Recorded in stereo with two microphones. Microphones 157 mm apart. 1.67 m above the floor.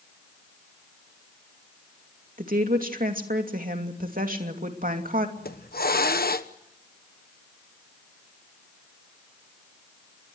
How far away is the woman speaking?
About 2.5 m.